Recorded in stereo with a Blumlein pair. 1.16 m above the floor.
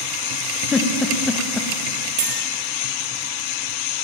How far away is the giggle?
About 1.2 m.